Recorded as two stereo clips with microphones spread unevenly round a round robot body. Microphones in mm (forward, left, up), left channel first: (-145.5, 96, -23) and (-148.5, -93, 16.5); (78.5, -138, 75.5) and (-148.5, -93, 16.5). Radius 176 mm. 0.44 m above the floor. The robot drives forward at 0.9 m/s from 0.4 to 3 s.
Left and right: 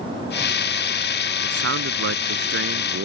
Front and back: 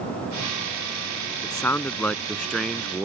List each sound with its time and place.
1.4 s a man speaking: 90° right; by 3.1 s 105° right